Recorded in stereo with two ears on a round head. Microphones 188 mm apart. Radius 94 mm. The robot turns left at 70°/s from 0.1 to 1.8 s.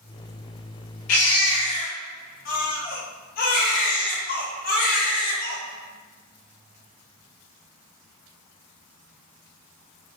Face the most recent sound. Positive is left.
turn(degrees=45)